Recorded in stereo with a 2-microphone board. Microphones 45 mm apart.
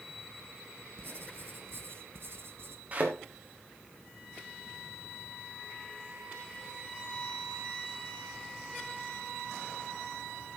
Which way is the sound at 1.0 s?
65° right (ahead or behind).